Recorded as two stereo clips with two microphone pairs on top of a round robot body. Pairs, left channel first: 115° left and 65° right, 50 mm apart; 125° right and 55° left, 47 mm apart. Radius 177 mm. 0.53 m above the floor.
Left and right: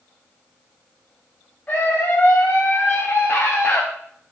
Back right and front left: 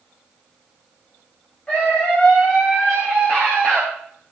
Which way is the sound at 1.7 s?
170° left.